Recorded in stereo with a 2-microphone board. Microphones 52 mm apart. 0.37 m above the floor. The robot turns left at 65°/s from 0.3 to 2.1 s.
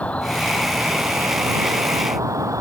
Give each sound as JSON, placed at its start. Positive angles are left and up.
{"t": 0.0, "sound": "an insect", "azimuth_deg": 25}